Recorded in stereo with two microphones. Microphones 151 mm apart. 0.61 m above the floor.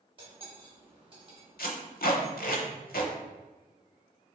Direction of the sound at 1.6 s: 85° left.